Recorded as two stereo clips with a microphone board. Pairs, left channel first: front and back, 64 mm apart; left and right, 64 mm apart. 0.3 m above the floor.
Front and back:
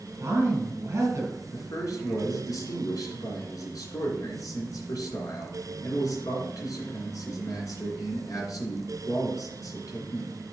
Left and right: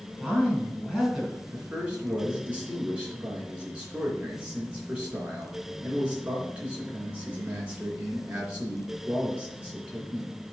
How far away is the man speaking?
About 3 m.